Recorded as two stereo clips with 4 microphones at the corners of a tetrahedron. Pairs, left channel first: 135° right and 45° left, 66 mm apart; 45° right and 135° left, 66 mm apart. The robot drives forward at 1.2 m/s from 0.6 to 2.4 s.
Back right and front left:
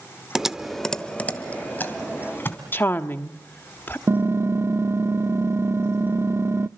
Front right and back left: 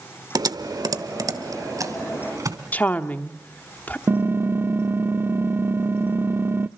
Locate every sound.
0.3 s typing on a keyboard: 130° left, 0.7 m; by 2.6 s 170° left, 2.5 m
2.7 s a woman speaking: 95° right, 1.1 m
4.1 s typing on a keyboard: 90° left, 0.5 m